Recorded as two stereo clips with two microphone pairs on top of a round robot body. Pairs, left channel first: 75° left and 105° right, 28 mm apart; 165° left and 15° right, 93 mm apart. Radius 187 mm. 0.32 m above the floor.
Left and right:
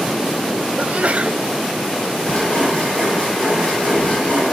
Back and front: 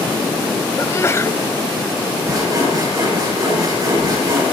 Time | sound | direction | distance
0.8 | a sneeze | 135° right | 1.6 m
2.2 | sawing | 35° left | 8.5 m